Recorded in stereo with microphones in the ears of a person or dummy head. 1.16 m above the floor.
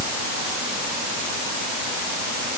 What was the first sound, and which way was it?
Only background noise.